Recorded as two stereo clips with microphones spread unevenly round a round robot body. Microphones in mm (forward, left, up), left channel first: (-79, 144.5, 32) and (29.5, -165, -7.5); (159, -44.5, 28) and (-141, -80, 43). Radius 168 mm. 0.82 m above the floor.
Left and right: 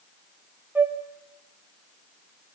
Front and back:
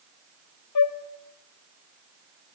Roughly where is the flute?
Ahead.